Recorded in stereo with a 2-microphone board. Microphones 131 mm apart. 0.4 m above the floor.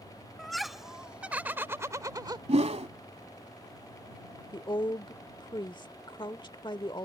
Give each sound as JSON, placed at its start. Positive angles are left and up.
{"t": 0.4, "sound": "laughter", "side_deg": 0}
{"t": 2.5, "sound": "a whoosh", "side_deg": -55}
{"t": 4.5, "sound": "a woman speaking", "side_deg": 35}